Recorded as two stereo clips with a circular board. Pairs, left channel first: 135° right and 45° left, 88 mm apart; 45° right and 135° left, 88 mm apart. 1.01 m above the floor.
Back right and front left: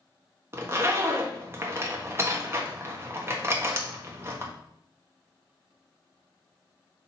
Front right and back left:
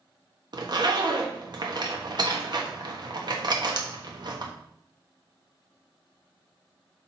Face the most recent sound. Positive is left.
turn(degrees=105)